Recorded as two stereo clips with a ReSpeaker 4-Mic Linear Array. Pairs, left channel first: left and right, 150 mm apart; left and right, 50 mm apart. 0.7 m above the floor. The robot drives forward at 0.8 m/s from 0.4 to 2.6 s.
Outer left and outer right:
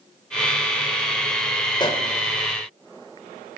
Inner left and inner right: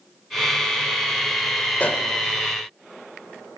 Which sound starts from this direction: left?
A pop, at 1.8 s.